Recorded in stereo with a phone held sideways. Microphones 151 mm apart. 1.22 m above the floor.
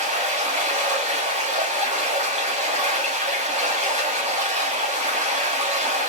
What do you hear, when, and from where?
0.0 s running water: 45° right (ahead or behind), 1.4 m